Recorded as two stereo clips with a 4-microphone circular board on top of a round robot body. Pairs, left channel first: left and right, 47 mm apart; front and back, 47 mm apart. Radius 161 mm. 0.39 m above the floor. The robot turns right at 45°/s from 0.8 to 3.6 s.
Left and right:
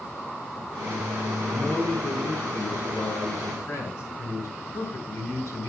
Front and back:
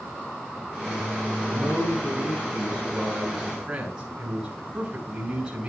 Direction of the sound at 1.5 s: 10° left.